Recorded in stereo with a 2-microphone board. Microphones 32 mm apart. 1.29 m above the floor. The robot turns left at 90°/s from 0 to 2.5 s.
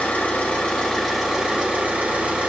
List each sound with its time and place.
0.0 s an engine running: 105° left, 2.5 m; by 2.5 s 120° right, 2.5 m